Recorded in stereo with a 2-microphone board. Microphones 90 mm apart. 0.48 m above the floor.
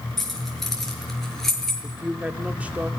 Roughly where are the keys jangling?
Centre.